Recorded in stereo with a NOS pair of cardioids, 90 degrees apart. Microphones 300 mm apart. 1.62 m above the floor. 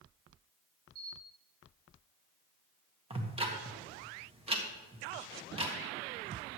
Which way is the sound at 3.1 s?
20° right.